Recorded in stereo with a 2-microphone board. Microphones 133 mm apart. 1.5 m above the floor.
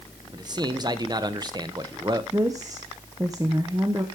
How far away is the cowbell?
No cowbell in this recording.